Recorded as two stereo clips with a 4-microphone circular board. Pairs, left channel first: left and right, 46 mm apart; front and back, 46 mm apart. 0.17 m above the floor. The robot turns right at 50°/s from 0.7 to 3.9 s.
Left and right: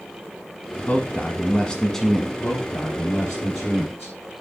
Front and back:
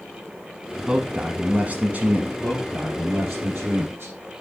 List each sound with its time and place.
0.9 s a man speaking: 110° left, 1.2 m; by 2.3 s 175° right, 1.2 m
2.4 s a man speaking: 120° left, 4.5 m; by 4.2 s 165° right, 4.5 m